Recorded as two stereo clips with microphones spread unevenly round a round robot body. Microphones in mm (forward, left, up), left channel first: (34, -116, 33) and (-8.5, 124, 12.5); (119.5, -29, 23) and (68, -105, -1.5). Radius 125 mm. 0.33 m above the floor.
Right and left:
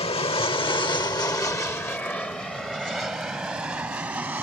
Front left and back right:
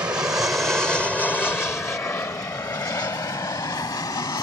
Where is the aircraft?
125° right; by 4.5 s 20° left.